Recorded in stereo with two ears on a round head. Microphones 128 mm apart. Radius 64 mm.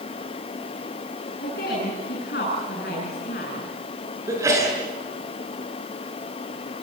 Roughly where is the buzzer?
I don't hear a buzzer.